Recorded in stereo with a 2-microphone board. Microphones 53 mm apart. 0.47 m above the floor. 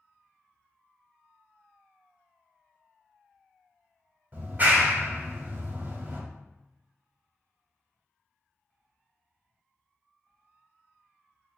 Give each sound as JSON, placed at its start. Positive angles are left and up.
{"t": 4.3, "sound": "a clap", "side_deg": -35, "distance_m": 1.1}